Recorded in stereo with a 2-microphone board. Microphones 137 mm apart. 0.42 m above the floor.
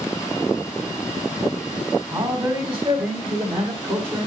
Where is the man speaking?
35° right (ahead or behind), 2.5 m; by 4.3 s 45° right (ahead or behind), 2 m.